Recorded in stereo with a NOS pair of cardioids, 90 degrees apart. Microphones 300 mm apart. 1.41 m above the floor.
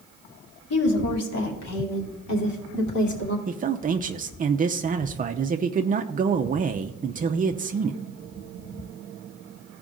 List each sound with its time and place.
0.7 s a woman speaking: 50° left, 3 m; by 3.4 s 75° left, 4 m
3.5 s a man speaking: 30° right, 0.6 m